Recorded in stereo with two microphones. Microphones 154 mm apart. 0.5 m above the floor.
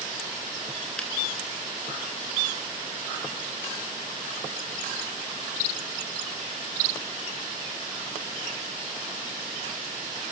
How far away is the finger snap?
About 4.5 m.